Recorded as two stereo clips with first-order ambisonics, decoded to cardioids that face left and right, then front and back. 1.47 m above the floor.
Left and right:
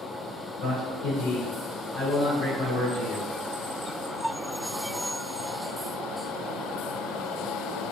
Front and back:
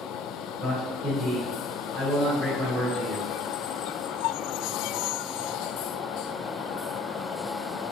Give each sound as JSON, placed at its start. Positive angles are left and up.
{"t": 0.6, "sound": "a man speaking", "azimuth_deg": 100, "distance_m": 1.4}